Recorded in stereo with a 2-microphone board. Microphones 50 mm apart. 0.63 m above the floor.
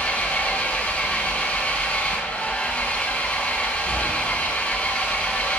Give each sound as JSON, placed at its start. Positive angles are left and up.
{"t": 0.0, "sound": "an engine running", "side_deg": 35, "distance_m": 4.0}